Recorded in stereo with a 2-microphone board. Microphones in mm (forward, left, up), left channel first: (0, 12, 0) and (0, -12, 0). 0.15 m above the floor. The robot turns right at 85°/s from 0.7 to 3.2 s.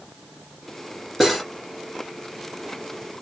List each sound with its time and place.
1.2 s cutlery clinking: 10° right (ahead or behind), 1.6 m; by 1.4 s 5° left (ahead or behind), 1.6 m